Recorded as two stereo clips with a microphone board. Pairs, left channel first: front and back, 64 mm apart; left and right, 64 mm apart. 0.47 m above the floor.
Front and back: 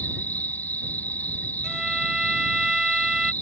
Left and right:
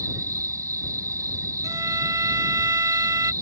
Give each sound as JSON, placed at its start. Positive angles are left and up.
{"t": 0.0, "sound": "an insect", "azimuth_deg": -60}
{"t": 1.6, "sound": "a violin", "azimuth_deg": -100}